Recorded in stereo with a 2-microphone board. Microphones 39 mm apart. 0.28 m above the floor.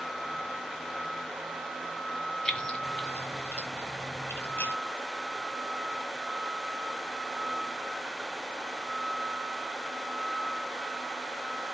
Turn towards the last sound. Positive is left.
turn(degrees=65)  # may be behind; listen again after turning